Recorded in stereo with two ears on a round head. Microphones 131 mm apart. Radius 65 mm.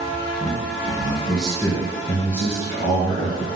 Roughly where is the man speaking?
Centre.